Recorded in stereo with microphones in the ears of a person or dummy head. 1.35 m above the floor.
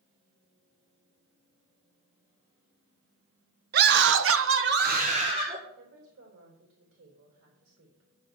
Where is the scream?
50° right (ahead or behind), 1.3 m; by 5.6 s 25° right (ahead or behind), 1.8 m.